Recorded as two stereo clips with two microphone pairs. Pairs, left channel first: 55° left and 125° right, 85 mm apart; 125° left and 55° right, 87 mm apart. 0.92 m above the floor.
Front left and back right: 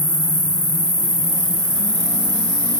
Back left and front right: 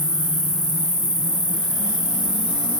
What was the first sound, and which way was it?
An insect, 75° right.